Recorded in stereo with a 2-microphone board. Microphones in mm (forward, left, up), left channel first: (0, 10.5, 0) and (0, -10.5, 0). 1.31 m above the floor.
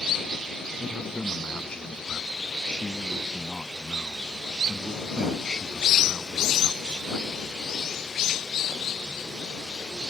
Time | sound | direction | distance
0.8 | a man speaking | 50° left (ahead or behind) | ?